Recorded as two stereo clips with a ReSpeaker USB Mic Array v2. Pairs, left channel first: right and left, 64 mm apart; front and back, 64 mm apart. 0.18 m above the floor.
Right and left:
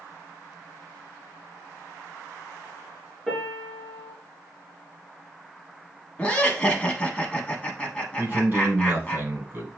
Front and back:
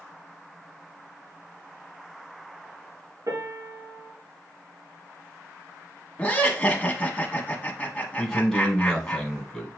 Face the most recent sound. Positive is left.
turn(degrees=75)